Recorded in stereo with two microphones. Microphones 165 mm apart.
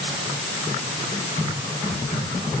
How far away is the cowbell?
I don't hear a cowbell.